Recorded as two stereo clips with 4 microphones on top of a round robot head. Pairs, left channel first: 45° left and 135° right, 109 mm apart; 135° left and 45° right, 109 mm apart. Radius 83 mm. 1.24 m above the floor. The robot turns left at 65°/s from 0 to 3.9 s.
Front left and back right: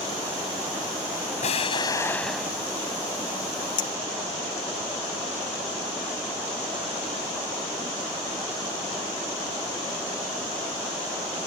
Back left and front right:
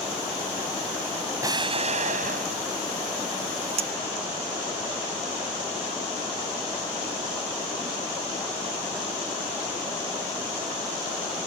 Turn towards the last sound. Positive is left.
turn(degrees=-15)